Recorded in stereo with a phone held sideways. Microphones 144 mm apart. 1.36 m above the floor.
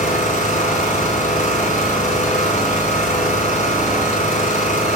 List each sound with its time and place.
0.0 s an engine running: 55° left (ahead or behind), 3.5 m